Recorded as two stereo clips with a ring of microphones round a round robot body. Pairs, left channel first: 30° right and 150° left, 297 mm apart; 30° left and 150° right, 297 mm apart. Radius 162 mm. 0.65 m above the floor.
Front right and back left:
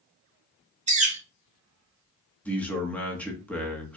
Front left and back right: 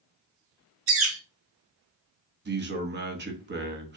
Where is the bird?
155° right, 1.5 m.